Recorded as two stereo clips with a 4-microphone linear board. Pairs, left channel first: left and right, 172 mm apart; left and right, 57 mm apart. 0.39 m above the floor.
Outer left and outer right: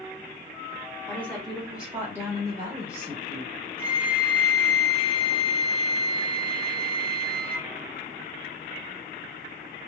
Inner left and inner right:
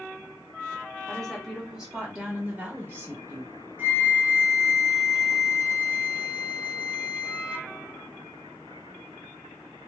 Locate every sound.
1.1 s a woman speaking: 10° left (ahead or behind), 1.2 m; by 3.5 s 40° right (ahead or behind), 1.5 m
3.8 s a flute: 30° right (ahead or behind), 0.7 m